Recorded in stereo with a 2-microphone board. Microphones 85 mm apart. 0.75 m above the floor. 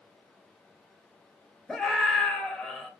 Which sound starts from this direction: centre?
A scream, at 1.7 s.